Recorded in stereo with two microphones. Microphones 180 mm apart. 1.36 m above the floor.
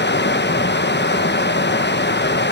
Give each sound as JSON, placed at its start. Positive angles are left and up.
{"t": 0.0, "sound": "running water", "side_deg": 75, "distance_m": 1.0}